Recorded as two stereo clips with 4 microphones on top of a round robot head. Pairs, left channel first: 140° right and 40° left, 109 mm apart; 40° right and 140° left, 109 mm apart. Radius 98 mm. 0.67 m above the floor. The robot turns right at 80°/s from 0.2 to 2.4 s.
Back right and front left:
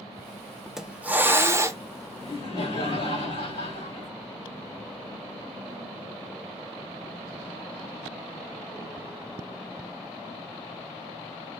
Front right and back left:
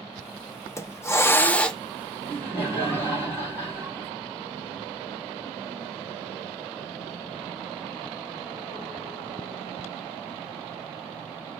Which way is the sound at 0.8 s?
40° right.